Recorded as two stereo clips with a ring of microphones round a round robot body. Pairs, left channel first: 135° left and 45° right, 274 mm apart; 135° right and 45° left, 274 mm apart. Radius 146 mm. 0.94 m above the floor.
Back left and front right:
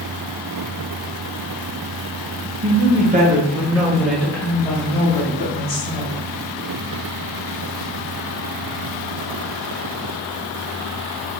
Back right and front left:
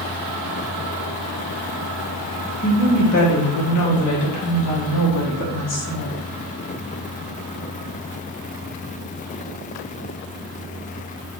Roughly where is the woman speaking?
Right.